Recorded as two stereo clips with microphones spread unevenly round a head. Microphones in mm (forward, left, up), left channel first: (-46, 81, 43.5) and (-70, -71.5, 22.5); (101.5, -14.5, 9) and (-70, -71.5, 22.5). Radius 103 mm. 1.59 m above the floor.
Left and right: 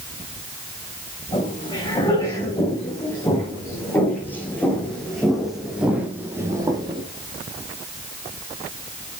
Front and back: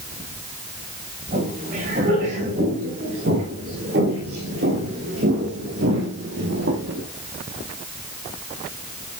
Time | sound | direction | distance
1.3 | footsteps | 145° left | 7 m